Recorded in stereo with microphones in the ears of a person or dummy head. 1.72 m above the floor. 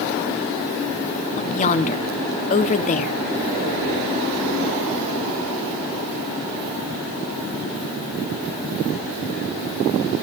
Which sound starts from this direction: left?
A woman speaking, at 1.4 s.